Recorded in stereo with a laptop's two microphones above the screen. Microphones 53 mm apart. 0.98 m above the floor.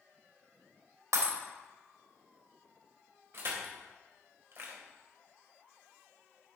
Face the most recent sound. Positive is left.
turn(degrees=-50)  # may be behind; listen again after turning